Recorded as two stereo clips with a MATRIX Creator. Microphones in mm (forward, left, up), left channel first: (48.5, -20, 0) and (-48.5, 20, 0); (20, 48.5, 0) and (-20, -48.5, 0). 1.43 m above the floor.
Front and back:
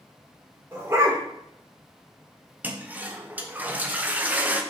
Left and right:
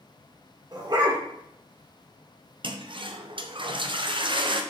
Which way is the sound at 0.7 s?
145° right.